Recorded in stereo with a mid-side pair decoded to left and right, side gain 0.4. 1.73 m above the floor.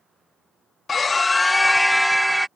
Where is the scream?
40° left; by 2.5 s 10° right.